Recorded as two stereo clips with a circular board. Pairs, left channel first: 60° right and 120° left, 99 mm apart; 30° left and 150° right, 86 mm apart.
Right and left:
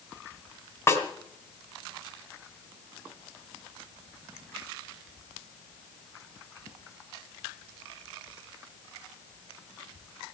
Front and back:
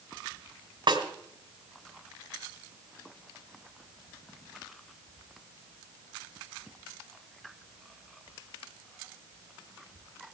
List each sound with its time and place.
0.9 s a snare drum: 120° right, 3 m